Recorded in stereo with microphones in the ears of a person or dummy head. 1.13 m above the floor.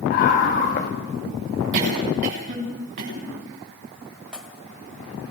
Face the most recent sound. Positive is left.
turn(degrees=-5)  # may be behind; listen again after turning